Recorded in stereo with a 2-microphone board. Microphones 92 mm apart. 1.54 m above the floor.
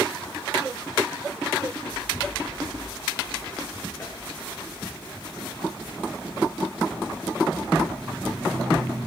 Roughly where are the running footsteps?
Left.